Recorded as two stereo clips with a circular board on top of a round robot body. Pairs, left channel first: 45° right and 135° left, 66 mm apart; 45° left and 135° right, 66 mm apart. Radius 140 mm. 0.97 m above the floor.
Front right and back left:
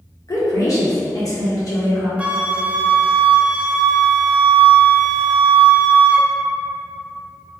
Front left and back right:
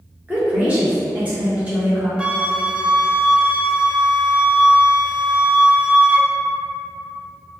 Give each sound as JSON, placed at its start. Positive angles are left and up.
{"t": 0.3, "sound": "a woman speaking", "azimuth_deg": -70, "distance_m": 1.4}
{"t": 2.2, "sound": "a flute", "azimuth_deg": 175, "distance_m": 0.6}